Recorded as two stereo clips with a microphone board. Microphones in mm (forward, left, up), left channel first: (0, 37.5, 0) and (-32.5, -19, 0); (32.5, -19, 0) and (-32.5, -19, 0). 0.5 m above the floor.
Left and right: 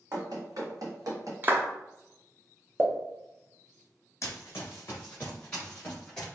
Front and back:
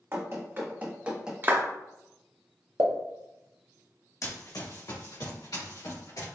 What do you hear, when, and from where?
0.1 s running footsteps: 130° right, 1.4 m; by 1.3 s 100° right, 1.0 m
1.4 s a clap: 150° right, 0.6 m
2.8 s a pop: 170° right, 0.6 m
4.2 s running footsteps: 25° left, 1.1 m; by 6.3 s 15° right, 3 m